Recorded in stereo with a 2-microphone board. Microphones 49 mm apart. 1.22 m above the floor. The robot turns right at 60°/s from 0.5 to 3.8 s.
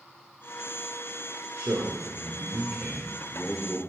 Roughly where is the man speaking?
Right.